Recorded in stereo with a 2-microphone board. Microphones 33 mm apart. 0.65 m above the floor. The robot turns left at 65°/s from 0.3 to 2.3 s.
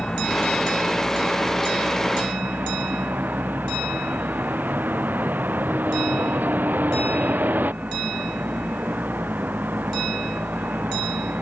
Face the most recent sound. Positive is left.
turn(degrees=-105)